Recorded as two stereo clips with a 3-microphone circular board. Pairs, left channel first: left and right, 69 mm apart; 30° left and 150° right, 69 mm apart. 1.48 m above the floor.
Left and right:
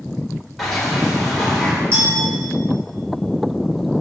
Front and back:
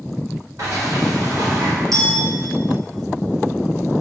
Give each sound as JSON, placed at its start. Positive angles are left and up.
{"t": 0.6, "sound": "a sliding door", "azimuth_deg": 175, "distance_m": 3.5}
{"t": 1.9, "sound": "a clink", "azimuth_deg": -140, "distance_m": 3.5}